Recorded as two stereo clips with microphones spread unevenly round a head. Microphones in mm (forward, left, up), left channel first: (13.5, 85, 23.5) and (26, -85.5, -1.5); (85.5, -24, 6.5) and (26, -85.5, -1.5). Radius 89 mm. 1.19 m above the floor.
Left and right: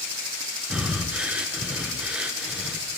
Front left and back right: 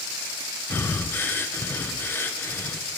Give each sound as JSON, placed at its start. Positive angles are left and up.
{"t": 0.7, "sound": "breathing", "azimuth_deg": -15, "distance_m": 0.7}